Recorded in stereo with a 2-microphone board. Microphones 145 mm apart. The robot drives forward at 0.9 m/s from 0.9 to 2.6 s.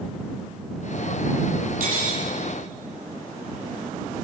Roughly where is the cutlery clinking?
Right.